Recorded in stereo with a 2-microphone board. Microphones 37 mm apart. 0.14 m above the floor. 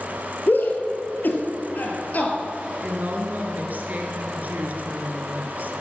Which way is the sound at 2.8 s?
45° right (ahead or behind).